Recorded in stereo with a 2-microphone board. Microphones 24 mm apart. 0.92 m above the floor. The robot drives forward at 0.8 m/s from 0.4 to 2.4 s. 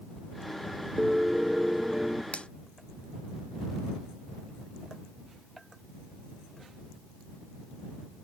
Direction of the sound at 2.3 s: 60° left (ahead or behind).